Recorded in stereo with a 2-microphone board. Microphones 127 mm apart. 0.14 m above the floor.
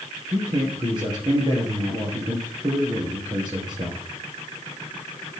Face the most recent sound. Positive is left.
turn(degrees=-35)  # may be behind; listen again after turning